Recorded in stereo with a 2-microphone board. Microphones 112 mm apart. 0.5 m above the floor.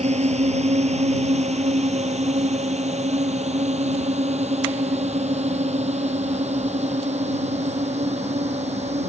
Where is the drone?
85° right.